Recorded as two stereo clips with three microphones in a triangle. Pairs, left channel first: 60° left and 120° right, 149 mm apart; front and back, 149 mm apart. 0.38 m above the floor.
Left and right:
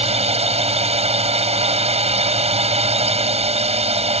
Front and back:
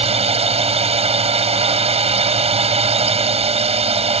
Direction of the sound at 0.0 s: 150° right.